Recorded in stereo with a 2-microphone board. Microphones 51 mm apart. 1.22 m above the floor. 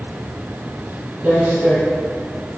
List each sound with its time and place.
1.2 s footsteps: 30° right (ahead or behind), 1.3 m